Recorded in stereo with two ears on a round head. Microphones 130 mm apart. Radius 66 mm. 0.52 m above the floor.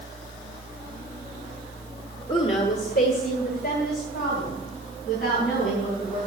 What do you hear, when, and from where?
2.3 s a woman speaking: 40° left (ahead or behind), 1.4 m; by 6.2 s 60° left (ahead or behind), 6 m